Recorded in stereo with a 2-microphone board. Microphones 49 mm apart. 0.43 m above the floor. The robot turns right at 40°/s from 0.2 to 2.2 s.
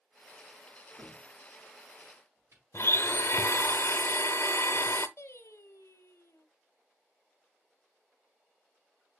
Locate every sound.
1.0 s a cupboard door: 25° right (ahead or behind), 6.5 m; by 2.6 s 70° right (ahead or behind), 6.5 m
2.7 s a blender: 60° left (ahead or behind), 0.8 m
5.2 s singing: 65° left (ahead or behind), 1.2 m